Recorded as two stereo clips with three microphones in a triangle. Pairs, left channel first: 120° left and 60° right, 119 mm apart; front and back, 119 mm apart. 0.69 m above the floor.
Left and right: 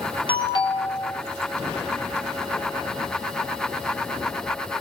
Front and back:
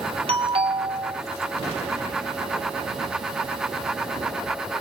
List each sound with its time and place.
0.3 s a doorbell: 155° left, 2.5 m